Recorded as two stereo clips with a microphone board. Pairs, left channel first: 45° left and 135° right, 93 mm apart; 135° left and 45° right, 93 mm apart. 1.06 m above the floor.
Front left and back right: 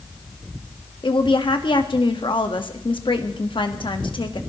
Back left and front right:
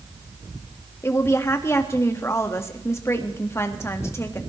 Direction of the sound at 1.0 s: 75° left.